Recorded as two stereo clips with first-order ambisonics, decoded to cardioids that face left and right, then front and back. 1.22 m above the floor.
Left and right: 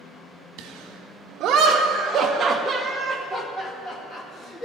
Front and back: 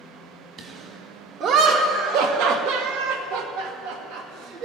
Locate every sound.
0.6 s laughter: 125° right, 2 m; by 4.7 s 150° left, 2 m